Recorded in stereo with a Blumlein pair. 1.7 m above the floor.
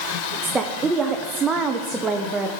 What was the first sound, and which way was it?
A woman speaking, 15° right.